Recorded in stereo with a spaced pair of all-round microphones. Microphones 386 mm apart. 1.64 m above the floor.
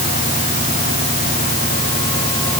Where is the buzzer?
No buzzer in this recording.